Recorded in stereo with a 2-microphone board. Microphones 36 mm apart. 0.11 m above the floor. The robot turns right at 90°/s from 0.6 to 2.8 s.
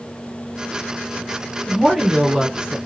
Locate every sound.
1.7 s a woman speaking: 5° right (ahead or behind), 1.1 m; by 2.8 s 20° right (ahead or behind), 1.1 m